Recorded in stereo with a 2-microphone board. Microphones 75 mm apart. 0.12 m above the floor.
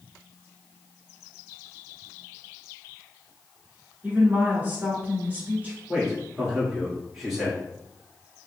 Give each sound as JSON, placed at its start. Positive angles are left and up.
{"t": 4.0, "sound": "a woman speaking", "side_deg": -25, "distance_m": 1.2}
{"t": 5.9, "sound": "a man speaking", "side_deg": -5, "distance_m": 1.6}